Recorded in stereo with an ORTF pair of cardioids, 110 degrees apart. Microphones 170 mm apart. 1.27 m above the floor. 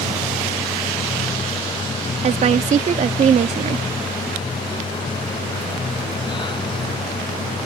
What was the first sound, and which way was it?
A machine running, 30° left.